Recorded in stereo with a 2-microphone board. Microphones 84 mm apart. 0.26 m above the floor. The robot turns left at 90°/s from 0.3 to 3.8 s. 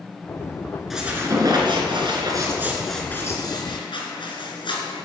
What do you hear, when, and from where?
0.9 s a squeak: straight ahead, 2.5 m; by 5.0 s 100° left, 2.5 m